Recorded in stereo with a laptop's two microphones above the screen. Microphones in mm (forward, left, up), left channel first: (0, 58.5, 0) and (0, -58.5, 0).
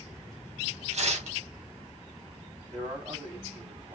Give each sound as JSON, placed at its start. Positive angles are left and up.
{"t": 0.9, "sound": "tearing paper", "side_deg": -65, "distance_m": 1.4}
{"t": 2.7, "sound": "a man speaking", "side_deg": -65, "distance_m": 3.0}